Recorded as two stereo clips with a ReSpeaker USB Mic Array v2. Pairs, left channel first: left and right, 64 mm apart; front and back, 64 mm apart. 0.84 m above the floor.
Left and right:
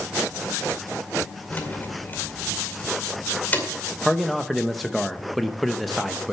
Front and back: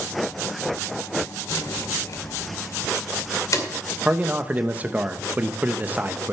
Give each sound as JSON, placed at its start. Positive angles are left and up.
{"t": 1.5, "sound": "keys jangling", "azimuth_deg": 30, "distance_m": 2.0}
{"t": 4.0, "sound": "a man speaking", "azimuth_deg": 180, "distance_m": 0.7}